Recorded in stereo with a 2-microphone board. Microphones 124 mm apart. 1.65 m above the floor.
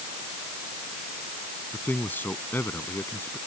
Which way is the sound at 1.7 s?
15° left (ahead or behind).